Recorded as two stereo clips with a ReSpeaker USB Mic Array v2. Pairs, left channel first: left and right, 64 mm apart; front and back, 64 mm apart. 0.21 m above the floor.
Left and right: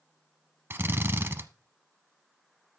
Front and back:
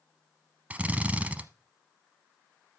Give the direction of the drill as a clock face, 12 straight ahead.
4 o'clock.